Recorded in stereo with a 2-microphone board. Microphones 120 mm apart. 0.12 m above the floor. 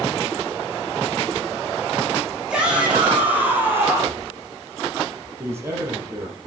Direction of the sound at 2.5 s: 5° right (ahead or behind).